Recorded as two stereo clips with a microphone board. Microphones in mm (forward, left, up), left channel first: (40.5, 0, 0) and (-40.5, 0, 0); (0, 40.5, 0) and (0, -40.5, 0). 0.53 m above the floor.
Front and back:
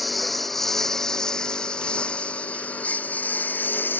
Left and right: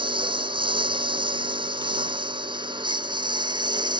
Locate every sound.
0.0 s a lawn mower: 90° right; by 4.0 s 65° right